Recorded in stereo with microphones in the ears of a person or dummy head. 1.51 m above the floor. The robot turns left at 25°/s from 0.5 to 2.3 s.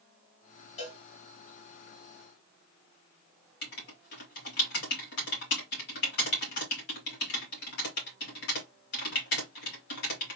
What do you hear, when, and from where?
0.8 s a cowbell: 45° left (ahead or behind), 1.4 m; by 1.0 s 40° left (ahead or behind), 1.4 m
3.6 s writing: 65° left (ahead or behind), 2.5 m